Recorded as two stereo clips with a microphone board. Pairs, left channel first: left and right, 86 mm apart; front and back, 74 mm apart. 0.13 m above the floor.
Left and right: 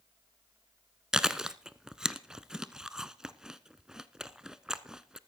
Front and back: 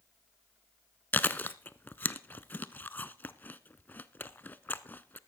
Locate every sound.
1.1 s chewing: 15° right, 0.6 m